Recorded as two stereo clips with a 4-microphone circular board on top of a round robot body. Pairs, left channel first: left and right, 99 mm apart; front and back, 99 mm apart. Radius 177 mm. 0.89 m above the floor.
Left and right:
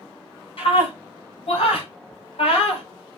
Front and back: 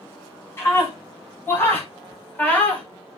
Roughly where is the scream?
Ahead left.